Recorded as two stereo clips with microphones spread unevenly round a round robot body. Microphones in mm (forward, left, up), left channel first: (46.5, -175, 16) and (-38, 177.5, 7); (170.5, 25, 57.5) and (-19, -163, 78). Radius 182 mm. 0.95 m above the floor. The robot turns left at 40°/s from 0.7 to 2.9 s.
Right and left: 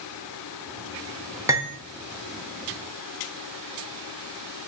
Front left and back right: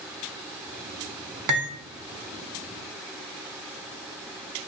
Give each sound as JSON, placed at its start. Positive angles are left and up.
{"t": 1.5, "sound": "cutlery clinking", "azimuth_deg": -175, "distance_m": 0.5}